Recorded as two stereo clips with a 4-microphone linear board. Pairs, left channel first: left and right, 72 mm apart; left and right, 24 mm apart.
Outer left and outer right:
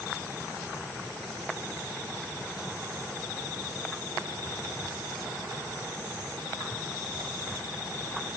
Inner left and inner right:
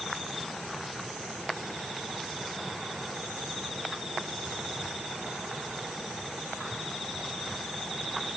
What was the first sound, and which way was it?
Only background noise.